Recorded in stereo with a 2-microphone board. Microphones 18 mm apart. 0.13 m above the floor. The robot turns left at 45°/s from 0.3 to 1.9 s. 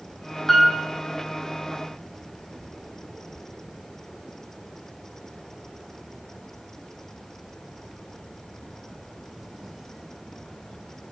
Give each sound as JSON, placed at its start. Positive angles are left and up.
{"t": 0.5, "sound": "a piano", "side_deg": 10, "distance_m": 1.5}